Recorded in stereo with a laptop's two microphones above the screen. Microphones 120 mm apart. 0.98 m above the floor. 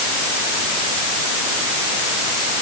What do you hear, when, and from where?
Only background noise.